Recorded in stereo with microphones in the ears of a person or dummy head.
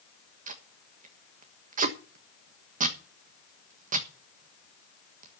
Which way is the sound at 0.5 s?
45° right (ahead or behind).